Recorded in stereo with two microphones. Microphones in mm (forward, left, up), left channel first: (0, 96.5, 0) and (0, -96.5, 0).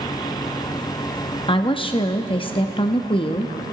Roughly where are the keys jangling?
No keys jangling in this recording.